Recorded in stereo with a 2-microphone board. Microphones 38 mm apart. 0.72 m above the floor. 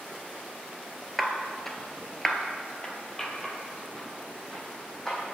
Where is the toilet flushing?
I don't hear a toilet flushing.